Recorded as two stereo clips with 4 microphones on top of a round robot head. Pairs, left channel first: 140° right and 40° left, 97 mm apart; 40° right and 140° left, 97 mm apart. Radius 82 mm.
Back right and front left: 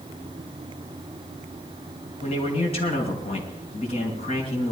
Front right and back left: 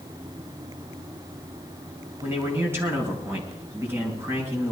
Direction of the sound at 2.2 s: 150° right.